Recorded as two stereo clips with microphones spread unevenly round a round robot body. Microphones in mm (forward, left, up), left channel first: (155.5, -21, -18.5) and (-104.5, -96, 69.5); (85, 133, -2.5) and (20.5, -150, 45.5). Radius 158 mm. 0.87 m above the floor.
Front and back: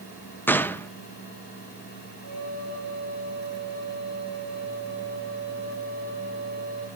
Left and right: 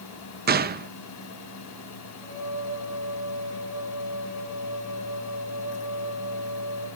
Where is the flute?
20° right, 7.5 m.